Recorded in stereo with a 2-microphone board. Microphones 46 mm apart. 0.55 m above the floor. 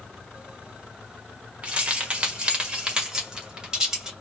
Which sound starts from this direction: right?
Keys jangling, at 1.6 s.